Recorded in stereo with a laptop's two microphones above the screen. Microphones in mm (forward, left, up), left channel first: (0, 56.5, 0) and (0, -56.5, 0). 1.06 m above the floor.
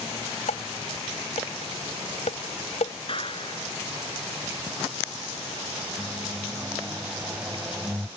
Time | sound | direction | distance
0.5 | dishes clattering | 75° left (ahead or behind) | ?
3.1 | a clap | 50° left (ahead or behind) | ?
6.0 | a microwave | 15° right (ahead or behind) | ?